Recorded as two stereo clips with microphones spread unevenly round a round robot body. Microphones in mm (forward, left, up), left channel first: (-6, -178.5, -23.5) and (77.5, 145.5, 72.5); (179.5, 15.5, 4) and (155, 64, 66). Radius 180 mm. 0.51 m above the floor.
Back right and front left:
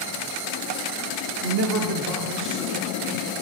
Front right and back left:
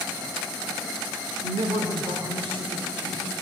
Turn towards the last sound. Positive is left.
turn(degrees=145)